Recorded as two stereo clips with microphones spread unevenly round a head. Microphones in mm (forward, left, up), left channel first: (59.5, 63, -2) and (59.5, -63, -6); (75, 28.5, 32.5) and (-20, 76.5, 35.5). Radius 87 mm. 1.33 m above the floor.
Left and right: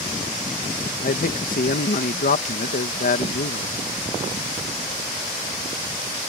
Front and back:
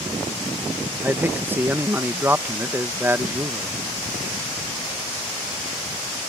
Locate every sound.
1.0 s a man speaking: 80° left